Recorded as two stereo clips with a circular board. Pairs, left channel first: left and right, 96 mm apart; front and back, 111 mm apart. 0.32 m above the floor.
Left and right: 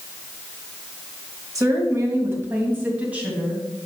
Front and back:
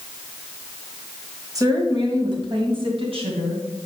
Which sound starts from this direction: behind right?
A woman speaking, at 1.6 s.